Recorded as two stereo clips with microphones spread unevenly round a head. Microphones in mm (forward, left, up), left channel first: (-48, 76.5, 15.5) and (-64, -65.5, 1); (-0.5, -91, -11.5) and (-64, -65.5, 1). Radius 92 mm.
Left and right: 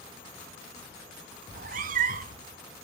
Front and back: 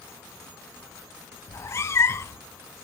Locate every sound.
1.5 s a cat meowing: 70° right, 0.7 m